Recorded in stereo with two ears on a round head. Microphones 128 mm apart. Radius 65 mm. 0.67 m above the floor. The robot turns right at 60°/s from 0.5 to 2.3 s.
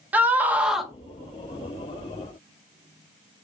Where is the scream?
10° right (ahead or behind), 0.7 m; by 0.9 s centre (ahead or behind), 0.7 m.